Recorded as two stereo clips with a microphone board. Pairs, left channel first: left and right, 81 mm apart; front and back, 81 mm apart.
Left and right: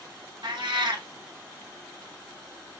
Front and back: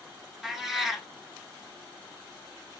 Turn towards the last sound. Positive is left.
turn(degrees=-95)